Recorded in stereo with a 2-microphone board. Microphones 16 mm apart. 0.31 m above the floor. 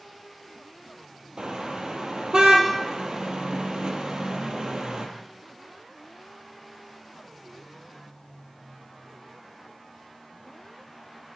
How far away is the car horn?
About 3.5 m.